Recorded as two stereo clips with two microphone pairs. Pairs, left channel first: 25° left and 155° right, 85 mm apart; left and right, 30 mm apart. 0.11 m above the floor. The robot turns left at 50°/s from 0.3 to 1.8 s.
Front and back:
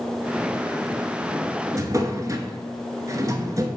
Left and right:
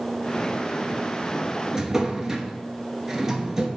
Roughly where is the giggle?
No giggle in this recording.